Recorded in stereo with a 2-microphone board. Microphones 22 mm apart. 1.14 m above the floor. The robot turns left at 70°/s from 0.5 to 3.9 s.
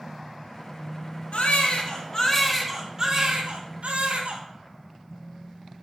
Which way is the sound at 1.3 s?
85° left.